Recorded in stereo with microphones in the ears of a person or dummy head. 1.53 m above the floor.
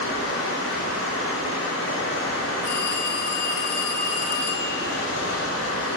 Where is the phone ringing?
50° left (ahead or behind), 0.8 m.